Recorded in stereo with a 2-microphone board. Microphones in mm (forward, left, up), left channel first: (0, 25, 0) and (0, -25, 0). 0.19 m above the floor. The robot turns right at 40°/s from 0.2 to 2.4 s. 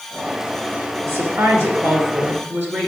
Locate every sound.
1.1 s a woman speaking: 110° right, 3 m; by 2.9 s 55° right, 3 m